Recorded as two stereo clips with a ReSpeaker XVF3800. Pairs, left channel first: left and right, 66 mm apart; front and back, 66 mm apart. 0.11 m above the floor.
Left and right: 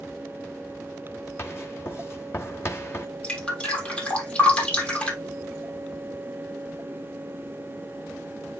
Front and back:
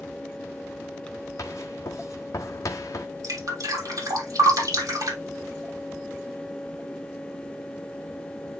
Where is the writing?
40° left, 1.3 m.